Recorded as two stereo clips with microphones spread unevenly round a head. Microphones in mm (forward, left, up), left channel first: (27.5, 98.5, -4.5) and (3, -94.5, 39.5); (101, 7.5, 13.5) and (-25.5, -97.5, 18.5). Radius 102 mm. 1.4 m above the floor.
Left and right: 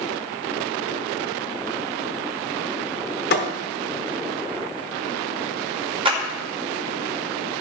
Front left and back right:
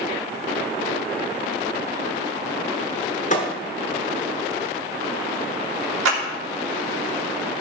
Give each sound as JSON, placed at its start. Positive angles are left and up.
{"t": 3.3, "sound": "a thud", "azimuth_deg": 55, "distance_m": 1.2}
{"t": 6.0, "sound": "a clap", "azimuth_deg": -165, "distance_m": 2.0}